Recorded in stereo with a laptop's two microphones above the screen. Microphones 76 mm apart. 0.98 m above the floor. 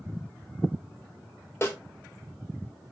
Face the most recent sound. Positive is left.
turn(degrees=30)  # may be behind; listen again after turning